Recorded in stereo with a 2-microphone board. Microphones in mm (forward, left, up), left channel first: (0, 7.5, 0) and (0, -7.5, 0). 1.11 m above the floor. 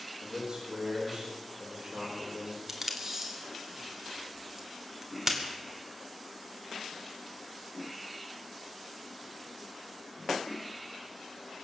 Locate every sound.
0.2 s a man speaking: 50° right (ahead or behind), 5 m
2.7 s tape being pulled: 20° right (ahead or behind), 2 m